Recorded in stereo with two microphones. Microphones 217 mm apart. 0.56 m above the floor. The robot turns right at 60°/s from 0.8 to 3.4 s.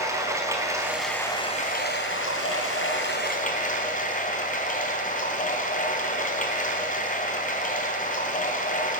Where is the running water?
15° right, 3.5 m; by 9.0 s 140° left, 3.5 m.